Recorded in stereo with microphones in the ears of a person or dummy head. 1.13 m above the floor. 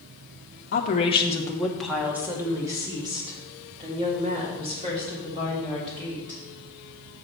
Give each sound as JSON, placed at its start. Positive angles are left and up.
{"t": 0.7, "sound": "a woman speaking", "side_deg": 50, "distance_m": 0.8}